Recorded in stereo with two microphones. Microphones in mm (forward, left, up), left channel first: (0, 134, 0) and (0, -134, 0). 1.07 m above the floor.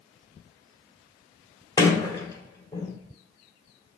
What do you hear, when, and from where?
1.8 s a sliding door: 15° left (ahead or behind), 1.7 m